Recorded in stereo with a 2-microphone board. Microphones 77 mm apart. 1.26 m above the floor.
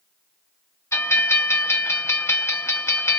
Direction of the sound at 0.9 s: 35° left (ahead or behind).